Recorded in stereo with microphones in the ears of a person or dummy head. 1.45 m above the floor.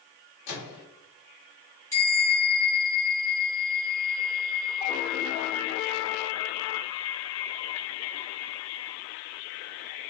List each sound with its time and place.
0.5 s a microwave: 75° left (ahead or behind), 1.1 m
1.9 s a bell: 15° left (ahead or behind), 0.9 m